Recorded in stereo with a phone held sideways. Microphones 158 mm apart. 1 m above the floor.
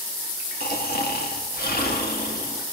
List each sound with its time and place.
0.6 s snoring: 75° left (ahead or behind), 1.5 m